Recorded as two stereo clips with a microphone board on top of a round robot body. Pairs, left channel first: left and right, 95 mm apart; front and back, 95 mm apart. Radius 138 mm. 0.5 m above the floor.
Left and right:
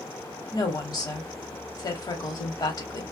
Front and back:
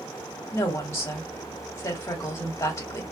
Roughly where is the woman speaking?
Ahead left.